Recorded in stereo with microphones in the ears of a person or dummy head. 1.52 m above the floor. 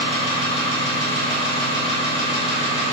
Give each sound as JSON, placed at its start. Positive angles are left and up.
{"t": 0.0, "sound": "an engine running", "side_deg": 0, "distance_m": 1.9}